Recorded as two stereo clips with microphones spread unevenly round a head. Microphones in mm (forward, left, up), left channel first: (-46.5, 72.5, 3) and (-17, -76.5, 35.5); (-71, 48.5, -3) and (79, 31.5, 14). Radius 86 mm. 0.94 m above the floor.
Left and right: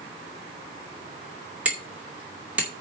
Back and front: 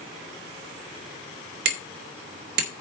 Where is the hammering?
5° left, 2 m.